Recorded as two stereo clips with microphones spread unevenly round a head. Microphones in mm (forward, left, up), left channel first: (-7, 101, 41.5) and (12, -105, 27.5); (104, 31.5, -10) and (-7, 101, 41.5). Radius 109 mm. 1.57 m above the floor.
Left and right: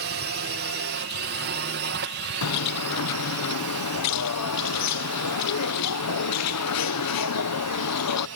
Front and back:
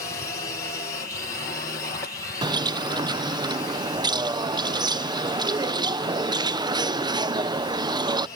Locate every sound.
0.0 s a drone: 80° right; by 8.4 s 85° right
2.4 s a bird: 100° left